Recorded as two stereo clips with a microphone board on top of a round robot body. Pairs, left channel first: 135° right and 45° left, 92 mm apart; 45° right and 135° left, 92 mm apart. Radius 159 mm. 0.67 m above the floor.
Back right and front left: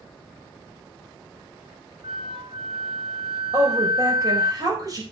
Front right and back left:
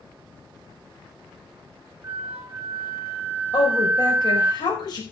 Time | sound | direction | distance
2.0 | a flute | 70° left | 2.5 m
3.5 | a woman speaking | 5° right | 5 m